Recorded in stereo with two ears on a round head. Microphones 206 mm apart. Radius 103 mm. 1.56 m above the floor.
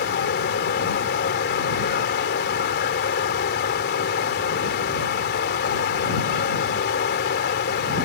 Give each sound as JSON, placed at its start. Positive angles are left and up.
{"t": 0.0, "sound": "running water", "side_deg": 45}